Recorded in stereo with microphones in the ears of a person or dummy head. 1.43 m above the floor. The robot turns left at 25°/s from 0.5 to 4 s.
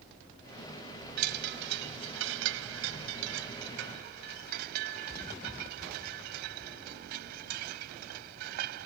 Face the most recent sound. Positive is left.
turn(degrees=-125)